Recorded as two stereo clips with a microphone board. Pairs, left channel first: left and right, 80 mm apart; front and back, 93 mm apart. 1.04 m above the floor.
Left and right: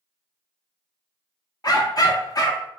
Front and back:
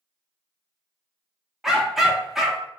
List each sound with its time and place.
1.6 s a dog barking: 95° left, 0.6 m